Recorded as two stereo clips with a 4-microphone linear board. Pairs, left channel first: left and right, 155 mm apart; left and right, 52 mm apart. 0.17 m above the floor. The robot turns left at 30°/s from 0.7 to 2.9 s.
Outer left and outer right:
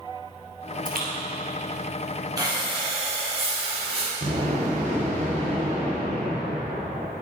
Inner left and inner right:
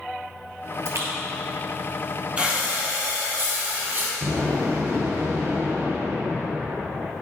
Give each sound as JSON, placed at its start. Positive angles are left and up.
{"t": 0.8, "sound": "a splash", "side_deg": -60, "distance_m": 1.8}
{"t": 2.4, "sound": "breathing", "side_deg": -20, "distance_m": 2.5}
{"t": 4.2, "sound": "an explosion", "side_deg": -45, "distance_m": 2.5}